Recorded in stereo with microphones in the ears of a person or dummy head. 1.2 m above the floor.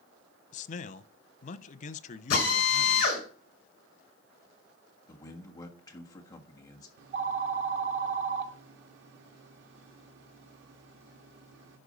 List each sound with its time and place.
0.5 s a man speaking: 45° left (ahead or behind), 0.7 m
2.3 s a drill: 50° left (ahead or behind), 7 m
5.1 s a man speaking: 20° left (ahead or behind), 1.6 m
7.0 s a phone ringing: 75° right (ahead or behind), 1.6 m